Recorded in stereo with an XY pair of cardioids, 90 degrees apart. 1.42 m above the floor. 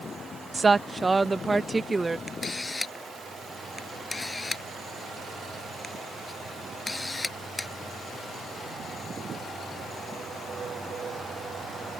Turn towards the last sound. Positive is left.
turn(degrees=25)